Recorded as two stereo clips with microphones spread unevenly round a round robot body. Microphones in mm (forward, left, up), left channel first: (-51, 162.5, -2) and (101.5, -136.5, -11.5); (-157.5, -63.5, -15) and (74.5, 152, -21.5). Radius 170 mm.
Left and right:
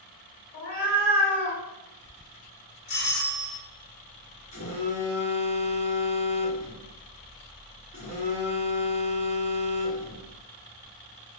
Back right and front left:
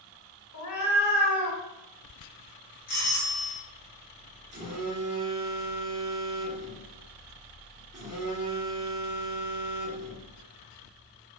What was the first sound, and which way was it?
A cat meowing, straight behind.